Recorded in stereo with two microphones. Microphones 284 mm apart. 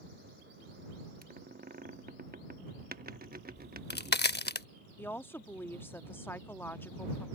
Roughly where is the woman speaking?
Centre.